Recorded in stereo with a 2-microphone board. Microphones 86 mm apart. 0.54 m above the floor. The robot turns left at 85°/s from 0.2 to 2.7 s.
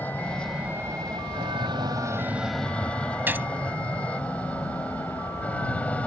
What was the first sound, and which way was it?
An aircraft, 20° left (ahead or behind).